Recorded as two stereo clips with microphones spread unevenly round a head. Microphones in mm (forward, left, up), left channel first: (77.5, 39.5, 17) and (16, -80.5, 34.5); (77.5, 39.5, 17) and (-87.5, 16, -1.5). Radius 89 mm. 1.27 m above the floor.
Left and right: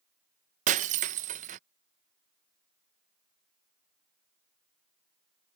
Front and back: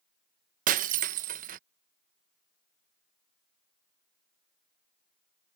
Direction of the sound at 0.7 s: 130° right.